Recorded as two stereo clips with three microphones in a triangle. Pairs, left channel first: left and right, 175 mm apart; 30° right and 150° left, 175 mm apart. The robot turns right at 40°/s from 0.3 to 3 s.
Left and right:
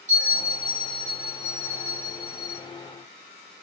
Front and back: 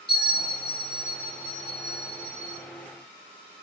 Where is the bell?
50° right, 1.7 m; by 2.6 s 45° left, 1.7 m.